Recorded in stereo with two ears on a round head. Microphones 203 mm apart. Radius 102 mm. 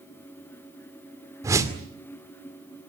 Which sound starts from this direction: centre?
A whoosh, at 1.4 s.